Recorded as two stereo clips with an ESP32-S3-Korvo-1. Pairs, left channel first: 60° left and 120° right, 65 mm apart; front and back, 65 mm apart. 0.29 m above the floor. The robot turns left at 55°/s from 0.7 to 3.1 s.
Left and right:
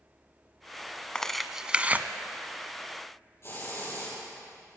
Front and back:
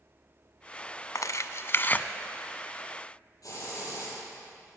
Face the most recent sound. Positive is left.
turn(degrees=20)